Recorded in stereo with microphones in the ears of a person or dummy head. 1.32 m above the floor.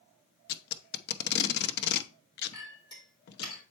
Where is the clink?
25° left (ahead or behind), 3.5 m.